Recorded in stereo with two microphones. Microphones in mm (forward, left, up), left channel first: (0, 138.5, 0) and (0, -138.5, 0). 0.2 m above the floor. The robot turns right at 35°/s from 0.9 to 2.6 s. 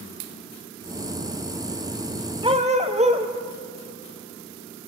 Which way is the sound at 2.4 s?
20° right (ahead or behind).